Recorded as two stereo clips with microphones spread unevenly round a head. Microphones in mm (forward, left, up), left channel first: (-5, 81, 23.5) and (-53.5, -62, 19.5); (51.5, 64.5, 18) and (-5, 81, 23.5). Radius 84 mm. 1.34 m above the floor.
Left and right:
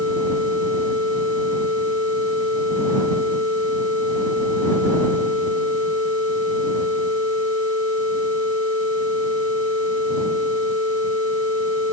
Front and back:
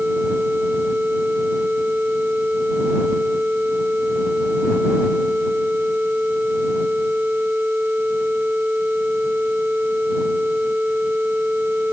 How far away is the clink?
No clink in this recording.